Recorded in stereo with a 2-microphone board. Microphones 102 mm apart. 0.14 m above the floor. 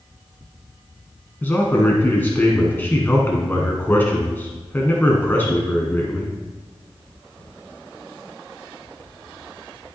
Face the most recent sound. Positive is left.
turn(degrees=20)  # may be behind; listen again after turning